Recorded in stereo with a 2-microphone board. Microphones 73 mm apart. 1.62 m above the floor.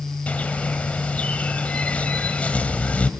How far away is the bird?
About 1.7 m.